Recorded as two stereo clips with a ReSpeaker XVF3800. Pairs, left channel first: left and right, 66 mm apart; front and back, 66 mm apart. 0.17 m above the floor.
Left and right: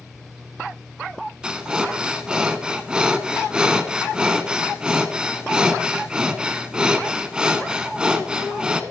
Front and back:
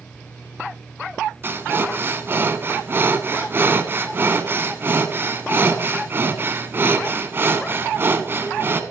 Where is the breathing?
160° right, 0.8 m.